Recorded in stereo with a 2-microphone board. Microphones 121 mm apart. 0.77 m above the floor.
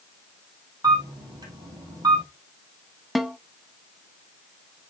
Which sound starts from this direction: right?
A camera shutter, at 0.8 s.